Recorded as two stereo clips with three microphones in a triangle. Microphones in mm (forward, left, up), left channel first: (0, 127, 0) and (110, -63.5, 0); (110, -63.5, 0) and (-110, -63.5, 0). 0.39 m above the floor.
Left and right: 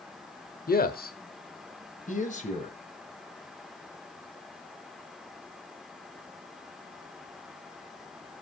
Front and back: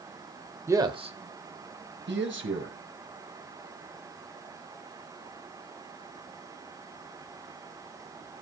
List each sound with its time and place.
0.7 s a man speaking: 110° left, 1.1 m; by 2.8 s 175° left, 1.9 m